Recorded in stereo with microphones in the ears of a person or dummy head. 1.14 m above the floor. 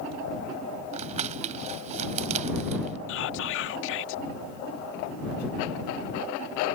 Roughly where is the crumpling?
Right.